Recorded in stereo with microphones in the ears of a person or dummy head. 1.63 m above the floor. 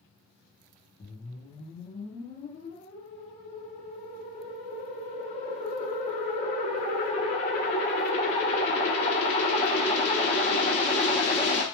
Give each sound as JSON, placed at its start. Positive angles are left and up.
{"t": 1.0, "sound": "a whoosh", "side_deg": 35, "distance_m": 0.9}